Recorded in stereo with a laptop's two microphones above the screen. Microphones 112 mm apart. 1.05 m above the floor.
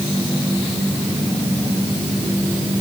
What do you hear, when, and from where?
Only background noise.